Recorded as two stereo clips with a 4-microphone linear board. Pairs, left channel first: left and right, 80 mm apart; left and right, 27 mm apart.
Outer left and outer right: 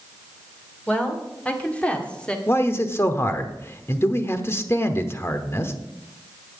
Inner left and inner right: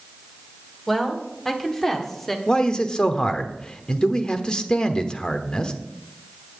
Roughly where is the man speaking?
Left.